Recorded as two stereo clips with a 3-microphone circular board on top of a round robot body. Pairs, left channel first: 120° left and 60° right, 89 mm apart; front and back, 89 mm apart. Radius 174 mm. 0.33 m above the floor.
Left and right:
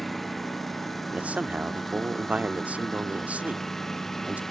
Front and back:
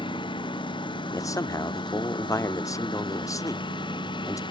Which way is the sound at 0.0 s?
30° left.